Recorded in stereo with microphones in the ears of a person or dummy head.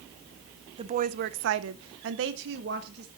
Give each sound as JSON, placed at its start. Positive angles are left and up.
{"t": 0.8, "sound": "a woman speaking", "side_deg": -35, "distance_m": 0.8}